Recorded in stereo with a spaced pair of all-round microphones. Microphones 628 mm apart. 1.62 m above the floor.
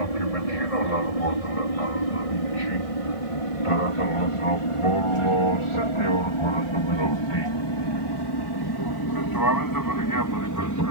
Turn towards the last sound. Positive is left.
turn(degrees=25)  # may be behind; listen again after turning